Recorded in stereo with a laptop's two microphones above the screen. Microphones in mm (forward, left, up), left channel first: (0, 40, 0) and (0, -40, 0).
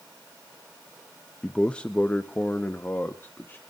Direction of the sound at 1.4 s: 5° left (ahead or behind).